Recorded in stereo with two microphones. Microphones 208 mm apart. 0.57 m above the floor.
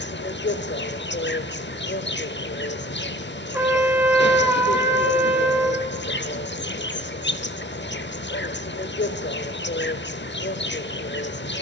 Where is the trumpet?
10° right (ahead or behind), 1.6 m.